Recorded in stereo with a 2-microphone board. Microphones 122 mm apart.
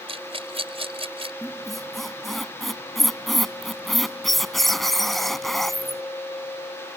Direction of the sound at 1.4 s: Centre (ahead or behind).